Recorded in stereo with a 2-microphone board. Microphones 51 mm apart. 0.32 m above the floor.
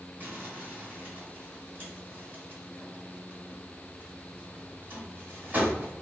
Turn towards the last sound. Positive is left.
turn(degrees=-35)  # may be behind; listen again after turning